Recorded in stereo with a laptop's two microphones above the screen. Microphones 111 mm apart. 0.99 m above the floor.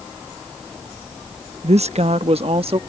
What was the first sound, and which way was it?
A woman speaking, 75° right (ahead or behind).